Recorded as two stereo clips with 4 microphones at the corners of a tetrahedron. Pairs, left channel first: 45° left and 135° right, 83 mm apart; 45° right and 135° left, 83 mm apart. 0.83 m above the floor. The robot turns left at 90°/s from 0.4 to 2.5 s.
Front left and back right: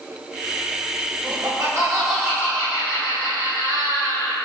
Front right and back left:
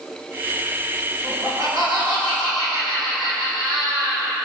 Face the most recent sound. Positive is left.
turn(degrees=105)